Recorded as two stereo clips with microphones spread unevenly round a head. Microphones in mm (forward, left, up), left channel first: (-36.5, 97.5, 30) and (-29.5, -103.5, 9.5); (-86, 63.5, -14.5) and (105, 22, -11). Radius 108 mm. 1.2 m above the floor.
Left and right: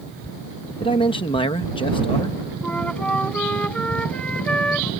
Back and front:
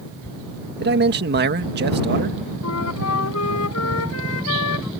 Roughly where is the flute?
Behind.